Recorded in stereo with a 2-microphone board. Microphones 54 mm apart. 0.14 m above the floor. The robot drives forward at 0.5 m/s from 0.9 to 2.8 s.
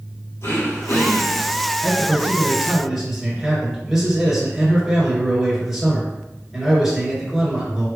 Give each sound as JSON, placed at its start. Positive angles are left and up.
{"t": 0.4, "sound": "throat clearing", "side_deg": 60, "distance_m": 2.0}
{"t": 1.8, "sound": "a man speaking", "side_deg": -10, "distance_m": 2.0}